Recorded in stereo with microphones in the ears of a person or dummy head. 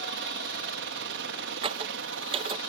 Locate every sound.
0.0 s a helicopter: 55° right (ahead or behind); by 2.7 s 60° right (ahead or behind)
1.6 s a squeak: 30° right (ahead or behind)